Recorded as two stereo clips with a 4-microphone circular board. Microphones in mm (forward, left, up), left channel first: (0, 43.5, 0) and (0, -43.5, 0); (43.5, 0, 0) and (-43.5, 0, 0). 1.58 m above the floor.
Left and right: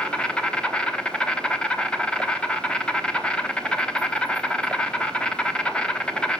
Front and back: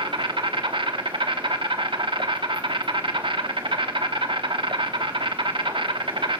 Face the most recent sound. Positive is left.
turn(degrees=170)